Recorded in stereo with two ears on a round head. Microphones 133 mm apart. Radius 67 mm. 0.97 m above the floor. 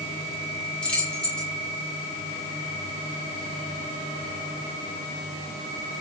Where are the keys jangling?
5° left (ahead or behind), 7 m.